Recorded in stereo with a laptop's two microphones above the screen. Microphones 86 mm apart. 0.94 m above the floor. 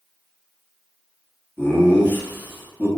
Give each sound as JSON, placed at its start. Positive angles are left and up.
{"t": 1.6, "sound": "laughter", "side_deg": 25, "distance_m": 0.9}